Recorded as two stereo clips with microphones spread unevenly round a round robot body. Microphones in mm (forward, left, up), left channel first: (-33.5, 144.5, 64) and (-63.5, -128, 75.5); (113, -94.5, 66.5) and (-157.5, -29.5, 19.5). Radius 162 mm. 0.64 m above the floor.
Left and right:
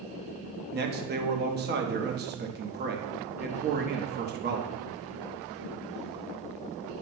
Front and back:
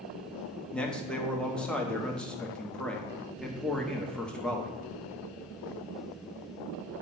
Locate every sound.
0.7 s a man speaking: 115° right, 0.9 m